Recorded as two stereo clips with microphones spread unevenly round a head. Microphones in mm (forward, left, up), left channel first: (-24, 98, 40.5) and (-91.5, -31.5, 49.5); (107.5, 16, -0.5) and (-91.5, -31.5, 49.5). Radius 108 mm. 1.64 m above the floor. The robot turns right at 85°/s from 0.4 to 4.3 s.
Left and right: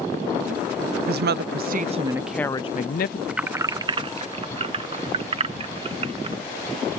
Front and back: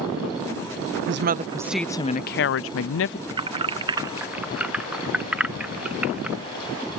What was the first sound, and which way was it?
A woman speaking, 135° right.